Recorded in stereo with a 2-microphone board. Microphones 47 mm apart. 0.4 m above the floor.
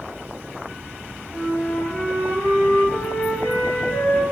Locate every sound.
1.3 s a flute: 60° left (ahead or behind), 3 m